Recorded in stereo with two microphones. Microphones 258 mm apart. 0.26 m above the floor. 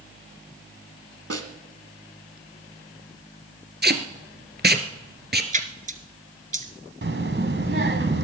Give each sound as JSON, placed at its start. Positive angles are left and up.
{"t": 1.3, "sound": "a snare drum", "side_deg": -65, "distance_m": 1.3}
{"t": 3.8, "sound": "tape being pulled", "side_deg": -40, "distance_m": 1.3}
{"t": 5.5, "sound": "a splash", "side_deg": -30, "distance_m": 1.1}
{"t": 7.0, "sound": "a child speaking", "side_deg": -50, "distance_m": 1.6}